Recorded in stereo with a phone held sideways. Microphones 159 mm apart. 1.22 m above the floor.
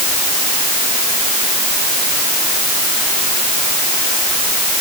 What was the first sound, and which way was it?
Only background noise.